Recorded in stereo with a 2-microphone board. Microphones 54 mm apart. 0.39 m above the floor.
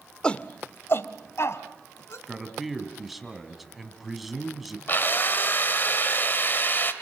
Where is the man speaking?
5° right (ahead or behind), 3 m.